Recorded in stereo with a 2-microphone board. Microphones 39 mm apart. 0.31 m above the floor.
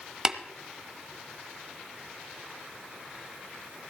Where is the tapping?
15° right (ahead or behind), 0.8 m.